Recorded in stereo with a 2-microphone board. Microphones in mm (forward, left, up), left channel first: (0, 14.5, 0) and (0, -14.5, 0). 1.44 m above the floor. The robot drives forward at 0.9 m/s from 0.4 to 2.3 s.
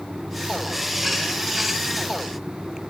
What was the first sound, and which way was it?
Only background noise.